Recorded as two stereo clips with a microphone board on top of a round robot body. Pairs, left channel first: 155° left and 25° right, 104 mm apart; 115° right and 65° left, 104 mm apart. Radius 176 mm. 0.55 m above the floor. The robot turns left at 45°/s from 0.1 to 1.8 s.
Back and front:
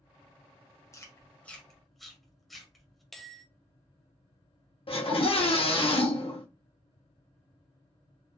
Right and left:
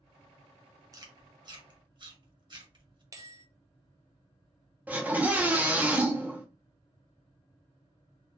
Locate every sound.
0.9 s chewing: 110° left, 1.5 m; by 3.0 s 70° left, 1.5 m
3.1 s a bell: 70° left, 0.9 m
4.9 s a scream: 140° left, 1.5 m